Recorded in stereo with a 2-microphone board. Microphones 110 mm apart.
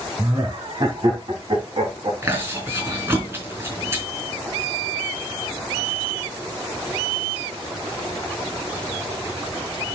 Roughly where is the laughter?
Right.